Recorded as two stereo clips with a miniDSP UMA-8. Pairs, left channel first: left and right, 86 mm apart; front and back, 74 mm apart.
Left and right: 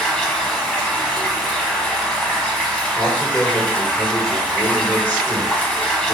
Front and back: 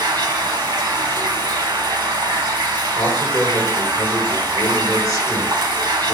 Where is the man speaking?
25° left, 1.8 m.